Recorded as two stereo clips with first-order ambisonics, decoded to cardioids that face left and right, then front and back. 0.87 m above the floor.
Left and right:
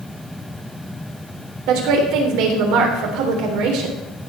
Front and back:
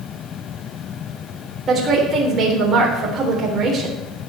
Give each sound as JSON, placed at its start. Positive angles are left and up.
{"t": 1.7, "sound": "a woman speaking", "azimuth_deg": -110, "distance_m": 3.5}